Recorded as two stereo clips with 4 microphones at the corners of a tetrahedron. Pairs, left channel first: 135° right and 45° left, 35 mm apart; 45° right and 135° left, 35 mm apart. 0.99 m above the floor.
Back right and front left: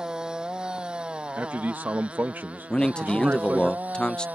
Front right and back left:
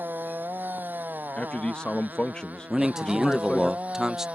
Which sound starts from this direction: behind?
A man speaking, at 2.7 s.